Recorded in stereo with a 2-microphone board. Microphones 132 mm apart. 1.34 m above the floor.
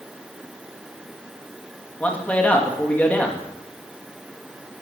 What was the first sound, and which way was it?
A man speaking, 10° left (ahead or behind).